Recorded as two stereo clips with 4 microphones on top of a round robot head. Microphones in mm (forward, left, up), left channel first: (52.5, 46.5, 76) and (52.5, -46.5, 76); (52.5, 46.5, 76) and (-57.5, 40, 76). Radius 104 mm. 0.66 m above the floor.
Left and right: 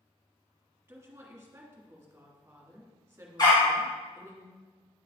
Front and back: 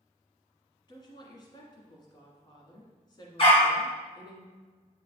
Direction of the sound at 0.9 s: 30° right.